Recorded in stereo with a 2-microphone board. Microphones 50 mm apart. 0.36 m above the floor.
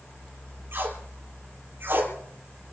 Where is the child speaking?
No child speaking in this recording.